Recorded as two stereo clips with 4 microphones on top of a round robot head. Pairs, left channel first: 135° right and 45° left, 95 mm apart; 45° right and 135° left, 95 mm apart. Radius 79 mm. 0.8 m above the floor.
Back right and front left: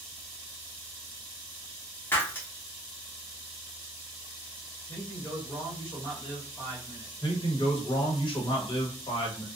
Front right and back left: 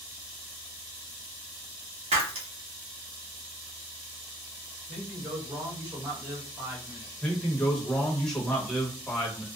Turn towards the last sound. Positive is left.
turn(degrees=-125)